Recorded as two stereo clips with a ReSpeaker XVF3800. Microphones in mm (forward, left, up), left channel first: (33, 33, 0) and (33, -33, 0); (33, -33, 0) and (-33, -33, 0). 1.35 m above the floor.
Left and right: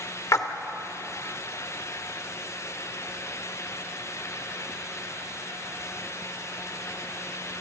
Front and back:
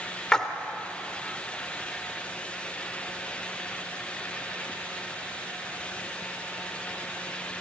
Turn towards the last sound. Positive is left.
turn(degrees=75)